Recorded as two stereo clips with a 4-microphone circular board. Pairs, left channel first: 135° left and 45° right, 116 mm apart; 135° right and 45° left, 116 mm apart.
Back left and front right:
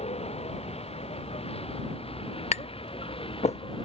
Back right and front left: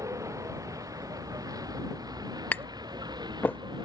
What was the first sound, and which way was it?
A vehicle, 105° left.